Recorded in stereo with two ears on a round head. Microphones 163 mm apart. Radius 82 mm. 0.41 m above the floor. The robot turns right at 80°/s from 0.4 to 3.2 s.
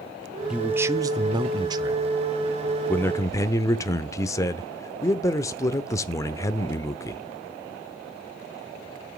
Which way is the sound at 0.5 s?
5° right (ahead or behind).